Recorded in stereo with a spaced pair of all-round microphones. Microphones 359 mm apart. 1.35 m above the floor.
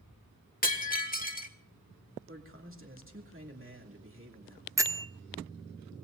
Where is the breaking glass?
25° left (ahead or behind), 1.6 m.